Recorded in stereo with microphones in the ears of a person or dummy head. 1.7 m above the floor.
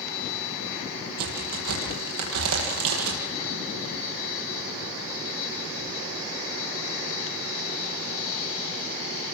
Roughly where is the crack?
Right.